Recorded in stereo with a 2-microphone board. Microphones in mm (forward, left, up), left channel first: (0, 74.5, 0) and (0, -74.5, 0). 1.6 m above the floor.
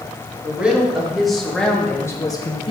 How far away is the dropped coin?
No dropped coin in this recording.